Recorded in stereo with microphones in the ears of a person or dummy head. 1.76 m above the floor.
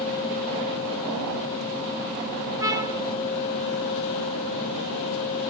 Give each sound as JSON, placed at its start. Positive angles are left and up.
{"t": 2.6, "sound": "a trumpet", "side_deg": -25, "distance_m": 1.5}